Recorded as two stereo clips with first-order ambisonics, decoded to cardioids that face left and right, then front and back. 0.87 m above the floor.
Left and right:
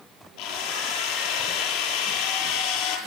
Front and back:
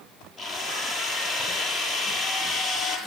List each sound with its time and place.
0.4 s a drill: 95° left, 8.5 m